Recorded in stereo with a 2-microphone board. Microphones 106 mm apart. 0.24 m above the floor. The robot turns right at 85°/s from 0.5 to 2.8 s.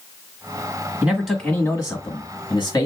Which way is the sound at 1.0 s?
25° right.